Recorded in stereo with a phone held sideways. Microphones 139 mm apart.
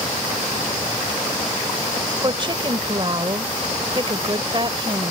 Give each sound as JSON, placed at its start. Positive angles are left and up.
{"t": 2.2, "sound": "a woman speaking", "side_deg": -35}